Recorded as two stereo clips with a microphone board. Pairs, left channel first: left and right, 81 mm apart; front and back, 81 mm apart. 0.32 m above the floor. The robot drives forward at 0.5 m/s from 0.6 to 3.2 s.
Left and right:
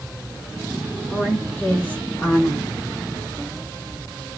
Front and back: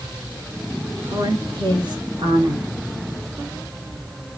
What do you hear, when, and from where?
1.1 s a woman speaking: 155° left, 4.5 m; by 2.7 s 160° left, 5 m